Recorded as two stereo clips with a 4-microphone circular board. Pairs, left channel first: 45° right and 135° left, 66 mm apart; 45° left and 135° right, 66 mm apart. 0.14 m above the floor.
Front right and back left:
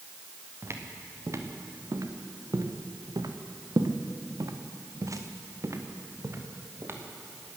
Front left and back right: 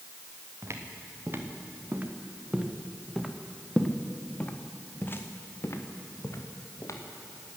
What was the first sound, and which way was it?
Footsteps, straight behind.